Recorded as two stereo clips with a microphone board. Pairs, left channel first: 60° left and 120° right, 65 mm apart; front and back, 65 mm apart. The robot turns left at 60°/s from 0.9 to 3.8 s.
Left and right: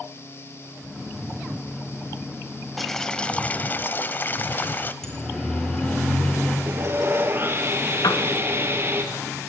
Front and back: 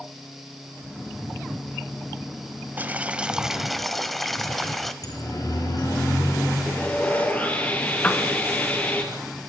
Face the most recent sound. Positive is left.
turn(degrees=70)